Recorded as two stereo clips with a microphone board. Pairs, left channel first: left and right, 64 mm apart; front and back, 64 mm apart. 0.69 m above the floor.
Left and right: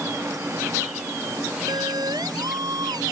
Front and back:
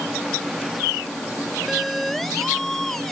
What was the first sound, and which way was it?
A siren, 90° right.